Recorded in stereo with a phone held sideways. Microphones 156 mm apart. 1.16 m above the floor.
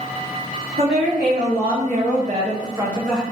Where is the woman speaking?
85° right, 1.8 m; by 3.2 s centre (ahead or behind), 1.1 m.